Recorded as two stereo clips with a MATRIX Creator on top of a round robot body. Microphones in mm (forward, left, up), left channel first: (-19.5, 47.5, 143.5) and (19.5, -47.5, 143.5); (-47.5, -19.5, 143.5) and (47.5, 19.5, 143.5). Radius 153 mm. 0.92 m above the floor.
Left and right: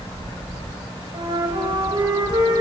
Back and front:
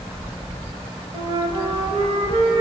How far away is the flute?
About 1.1 m.